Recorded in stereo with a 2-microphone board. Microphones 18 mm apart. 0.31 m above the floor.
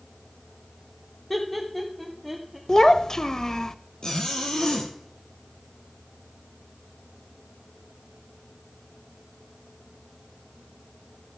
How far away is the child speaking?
About 0.5 m.